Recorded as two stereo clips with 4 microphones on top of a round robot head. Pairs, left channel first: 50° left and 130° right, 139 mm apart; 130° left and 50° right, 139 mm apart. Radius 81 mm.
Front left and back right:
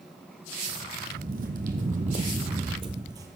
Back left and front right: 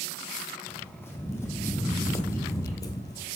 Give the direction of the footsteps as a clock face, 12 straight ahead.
5 o'clock.